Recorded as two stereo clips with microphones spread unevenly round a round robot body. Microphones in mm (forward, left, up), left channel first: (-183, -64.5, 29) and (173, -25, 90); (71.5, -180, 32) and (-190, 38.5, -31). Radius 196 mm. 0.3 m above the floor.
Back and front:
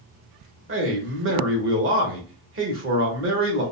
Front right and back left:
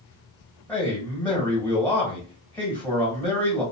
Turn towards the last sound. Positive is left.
turn(degrees=55)